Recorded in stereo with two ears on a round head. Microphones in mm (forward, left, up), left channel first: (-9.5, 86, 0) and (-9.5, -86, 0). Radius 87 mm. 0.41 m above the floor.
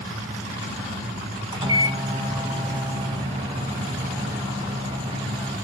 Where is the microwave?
25° right (ahead or behind), 2 m.